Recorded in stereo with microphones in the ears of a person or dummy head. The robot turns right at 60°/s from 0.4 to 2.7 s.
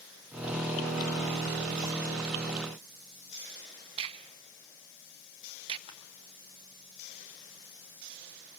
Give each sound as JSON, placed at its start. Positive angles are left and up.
{"t": 4.0, "sound": "a crack", "side_deg": -30, "distance_m": 1.0}
{"t": 5.9, "sound": "crushing", "side_deg": 30, "distance_m": 3.0}